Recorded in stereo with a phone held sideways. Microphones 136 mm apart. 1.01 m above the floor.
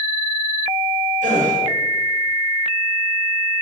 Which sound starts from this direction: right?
A gasp, at 1.2 s.